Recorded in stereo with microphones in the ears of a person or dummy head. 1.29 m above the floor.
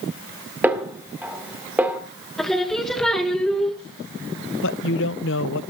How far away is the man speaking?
About 0.6 m.